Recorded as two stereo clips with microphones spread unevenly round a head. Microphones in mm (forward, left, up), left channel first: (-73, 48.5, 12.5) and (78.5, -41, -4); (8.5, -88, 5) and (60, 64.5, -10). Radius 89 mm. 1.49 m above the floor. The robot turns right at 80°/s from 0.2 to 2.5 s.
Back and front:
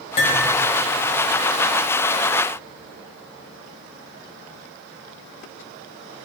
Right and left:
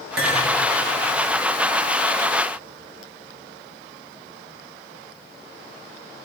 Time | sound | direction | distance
0.2 | cutlery clinking | 100° left | 4 m